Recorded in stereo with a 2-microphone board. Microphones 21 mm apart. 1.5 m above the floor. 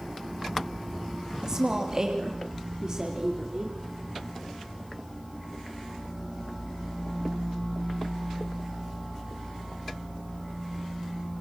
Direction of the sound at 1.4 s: 30° right (ahead or behind).